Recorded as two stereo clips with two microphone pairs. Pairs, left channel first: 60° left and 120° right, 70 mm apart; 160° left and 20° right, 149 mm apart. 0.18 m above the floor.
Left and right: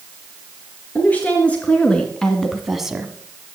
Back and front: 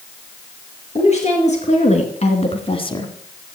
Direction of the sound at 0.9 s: 125° left.